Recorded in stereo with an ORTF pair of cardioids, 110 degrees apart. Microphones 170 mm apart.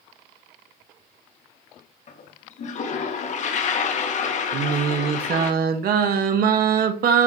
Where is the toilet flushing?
45° left, 1.9 m.